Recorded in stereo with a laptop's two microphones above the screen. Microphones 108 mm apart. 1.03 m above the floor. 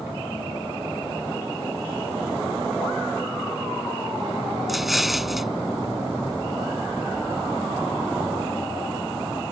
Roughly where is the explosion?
Centre.